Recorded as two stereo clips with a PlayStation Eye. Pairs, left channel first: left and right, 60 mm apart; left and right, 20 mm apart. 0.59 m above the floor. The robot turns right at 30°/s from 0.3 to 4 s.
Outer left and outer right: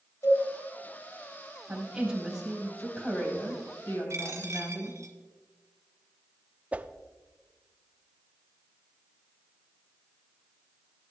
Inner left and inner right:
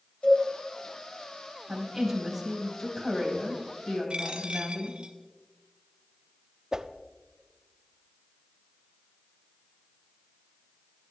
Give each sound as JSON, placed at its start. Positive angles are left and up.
{"t": 0.2, "sound": "a cowbell", "side_deg": 65, "distance_m": 4.0}
{"t": 1.7, "sound": "a woman speaking", "azimuth_deg": -20, "distance_m": 3.5}
{"t": 4.1, "sound": "a dropped coin", "side_deg": -55, "distance_m": 1.5}
{"t": 6.7, "sound": "a whoosh", "side_deg": -25, "distance_m": 0.5}